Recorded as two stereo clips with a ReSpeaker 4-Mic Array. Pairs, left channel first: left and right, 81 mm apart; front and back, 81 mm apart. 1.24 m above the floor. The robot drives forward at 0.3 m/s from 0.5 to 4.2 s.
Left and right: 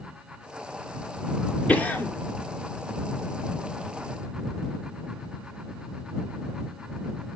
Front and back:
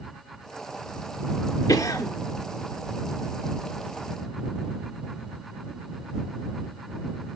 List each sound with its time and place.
1.7 s a cough: 20° left, 0.9 m; by 2.1 s 25° left, 0.8 m